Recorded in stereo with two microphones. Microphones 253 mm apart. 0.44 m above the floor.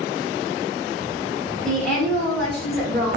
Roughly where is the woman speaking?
Centre.